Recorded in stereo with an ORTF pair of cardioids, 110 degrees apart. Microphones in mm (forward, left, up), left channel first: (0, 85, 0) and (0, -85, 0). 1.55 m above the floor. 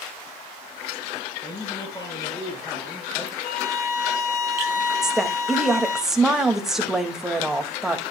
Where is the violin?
60° left, 1.8 m.